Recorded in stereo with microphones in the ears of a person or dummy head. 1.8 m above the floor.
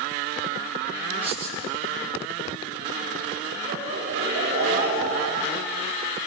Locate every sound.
1.2 s writing: 5° right (ahead or behind), 5.5 m
3.7 s laughter: 45° right (ahead or behind), 5.5 m